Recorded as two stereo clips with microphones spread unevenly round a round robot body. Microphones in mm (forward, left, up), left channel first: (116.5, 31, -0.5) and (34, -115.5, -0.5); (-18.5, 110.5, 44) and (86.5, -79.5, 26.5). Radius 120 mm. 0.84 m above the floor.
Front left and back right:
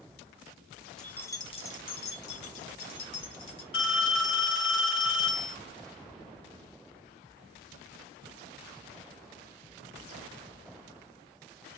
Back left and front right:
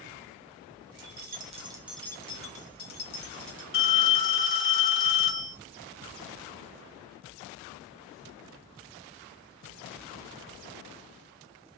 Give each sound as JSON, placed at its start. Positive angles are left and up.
{"t": 1.0, "sound": "keys jangling", "azimuth_deg": -25, "distance_m": 0.6}
{"t": 3.7, "sound": "a phone ringing", "azimuth_deg": 80, "distance_m": 1.5}